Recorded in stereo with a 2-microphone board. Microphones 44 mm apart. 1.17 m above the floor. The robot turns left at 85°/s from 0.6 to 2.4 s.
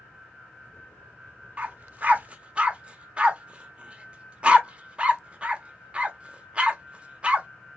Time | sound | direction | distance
1.6 | a dog barking | 30° right (ahead or behind) | 0.7 m